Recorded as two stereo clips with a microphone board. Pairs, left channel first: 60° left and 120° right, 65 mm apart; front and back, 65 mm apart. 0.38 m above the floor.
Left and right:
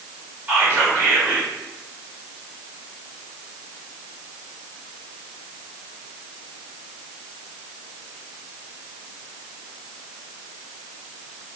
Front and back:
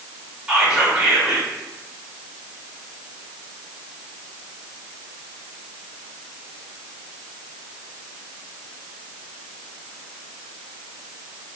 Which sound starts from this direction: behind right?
Whispering, at 0.5 s.